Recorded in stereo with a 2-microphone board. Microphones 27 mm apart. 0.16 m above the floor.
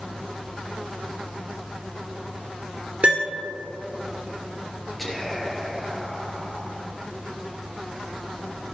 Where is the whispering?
5° left (ahead or behind), 3.5 m.